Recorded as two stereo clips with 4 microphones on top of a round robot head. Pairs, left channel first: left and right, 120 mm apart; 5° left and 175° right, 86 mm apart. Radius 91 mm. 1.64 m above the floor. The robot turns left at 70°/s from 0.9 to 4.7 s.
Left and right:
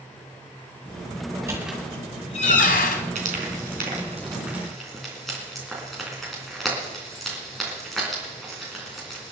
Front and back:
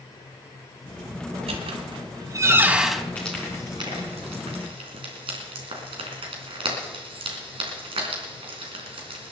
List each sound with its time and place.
1.3 s a squeak: 150° right, 1.8 m; by 3.0 s 90° left, 1.8 m
3.1 s frying: 70° right, 3.5 m; by 9.3 s straight behind, 3.5 m